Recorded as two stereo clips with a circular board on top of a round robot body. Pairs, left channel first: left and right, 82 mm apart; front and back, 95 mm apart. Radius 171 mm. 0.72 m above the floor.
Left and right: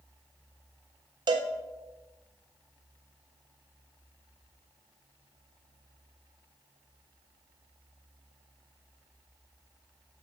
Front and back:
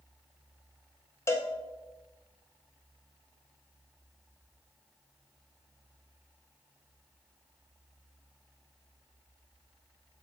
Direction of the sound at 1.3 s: 60° right.